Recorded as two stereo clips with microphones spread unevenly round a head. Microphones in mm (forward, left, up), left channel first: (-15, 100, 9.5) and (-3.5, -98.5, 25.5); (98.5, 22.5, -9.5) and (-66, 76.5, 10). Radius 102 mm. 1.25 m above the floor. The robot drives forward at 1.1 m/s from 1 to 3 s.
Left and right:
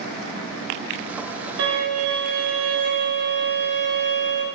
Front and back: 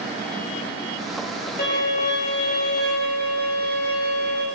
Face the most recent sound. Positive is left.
turn(degrees=-100)